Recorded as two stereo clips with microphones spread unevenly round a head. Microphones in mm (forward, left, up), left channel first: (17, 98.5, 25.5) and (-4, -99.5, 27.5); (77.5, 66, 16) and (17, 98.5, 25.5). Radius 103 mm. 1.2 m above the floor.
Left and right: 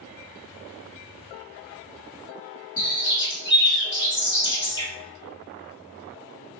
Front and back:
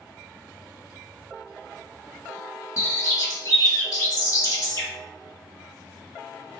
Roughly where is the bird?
Ahead.